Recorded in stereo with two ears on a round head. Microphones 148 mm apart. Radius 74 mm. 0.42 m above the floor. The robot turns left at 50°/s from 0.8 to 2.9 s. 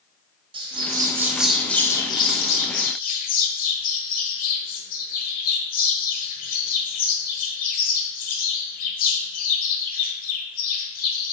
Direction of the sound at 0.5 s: 145° right.